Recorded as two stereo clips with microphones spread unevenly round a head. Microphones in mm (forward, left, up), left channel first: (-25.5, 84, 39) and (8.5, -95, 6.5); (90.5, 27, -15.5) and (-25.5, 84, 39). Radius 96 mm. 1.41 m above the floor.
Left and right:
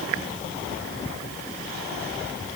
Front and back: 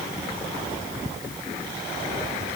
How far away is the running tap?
No running tap in this recording.